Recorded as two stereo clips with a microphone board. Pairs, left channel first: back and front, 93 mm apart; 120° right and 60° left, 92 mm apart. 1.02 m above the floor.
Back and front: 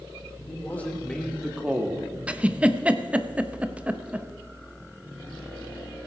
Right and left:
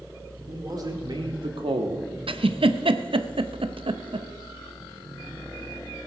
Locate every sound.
0.5 s a man speaking: 110° left, 3 m; by 2.1 s 55° left, 1.4 m
2.3 s a giggle: 75° left, 0.6 m